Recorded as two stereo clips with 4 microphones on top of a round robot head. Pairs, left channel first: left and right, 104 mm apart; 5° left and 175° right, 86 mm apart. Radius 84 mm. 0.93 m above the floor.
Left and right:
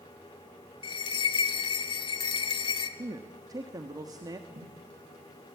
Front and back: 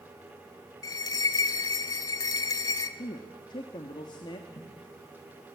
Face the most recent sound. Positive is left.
turn(degrees=-40)